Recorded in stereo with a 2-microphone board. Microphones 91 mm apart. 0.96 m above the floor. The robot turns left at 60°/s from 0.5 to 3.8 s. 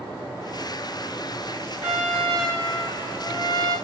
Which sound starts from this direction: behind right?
A trumpet, at 1.8 s.